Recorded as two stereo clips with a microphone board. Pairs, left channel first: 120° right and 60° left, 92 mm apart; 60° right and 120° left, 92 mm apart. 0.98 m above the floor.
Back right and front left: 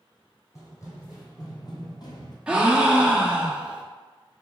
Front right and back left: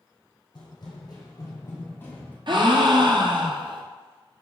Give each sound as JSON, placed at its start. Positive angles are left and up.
{"t": 0.6, "sound": "running footsteps", "azimuth_deg": -70, "distance_m": 1.6}
{"t": 2.5, "sound": "a gasp", "azimuth_deg": 135, "distance_m": 0.6}